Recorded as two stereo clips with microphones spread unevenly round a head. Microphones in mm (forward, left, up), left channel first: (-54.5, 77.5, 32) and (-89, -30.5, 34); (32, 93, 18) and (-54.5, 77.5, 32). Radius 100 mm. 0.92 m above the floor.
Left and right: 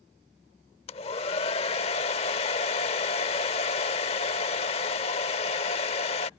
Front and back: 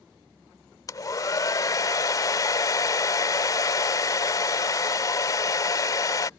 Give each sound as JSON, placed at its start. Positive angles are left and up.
{"t": 0.9, "sound": "a hair dryer", "azimuth_deg": 55}